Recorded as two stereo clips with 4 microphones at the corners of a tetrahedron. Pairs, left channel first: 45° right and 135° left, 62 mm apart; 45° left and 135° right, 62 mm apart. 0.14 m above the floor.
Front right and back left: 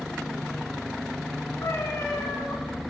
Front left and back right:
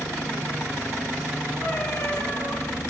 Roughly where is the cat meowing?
Ahead.